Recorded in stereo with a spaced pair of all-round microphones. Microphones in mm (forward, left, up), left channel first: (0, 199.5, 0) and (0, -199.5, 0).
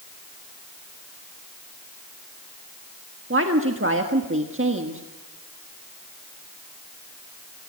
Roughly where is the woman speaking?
Right.